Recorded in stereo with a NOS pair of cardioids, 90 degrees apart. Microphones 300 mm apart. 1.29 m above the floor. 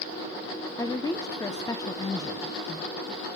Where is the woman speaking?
10° left, 0.5 m.